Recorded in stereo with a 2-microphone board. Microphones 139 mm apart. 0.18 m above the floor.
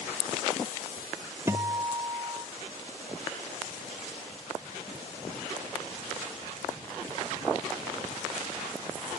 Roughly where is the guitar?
Centre.